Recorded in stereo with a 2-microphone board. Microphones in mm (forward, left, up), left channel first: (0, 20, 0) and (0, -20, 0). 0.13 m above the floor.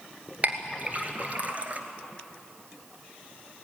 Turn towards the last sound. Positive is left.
turn(degrees=-40)  # may be behind; listen again after turning